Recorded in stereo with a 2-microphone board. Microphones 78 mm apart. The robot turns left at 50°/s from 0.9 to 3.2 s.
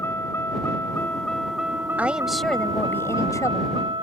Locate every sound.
0.0 s a vehicle: 30° left; by 4.0 s 85° right
2.0 s a woman speaking: 160° right; by 3.8 s 140° left